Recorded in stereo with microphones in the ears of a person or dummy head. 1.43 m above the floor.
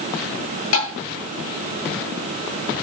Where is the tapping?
75° left (ahead or behind), 10 m.